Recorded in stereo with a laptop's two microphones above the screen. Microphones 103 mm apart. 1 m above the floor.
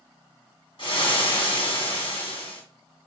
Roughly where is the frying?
Left.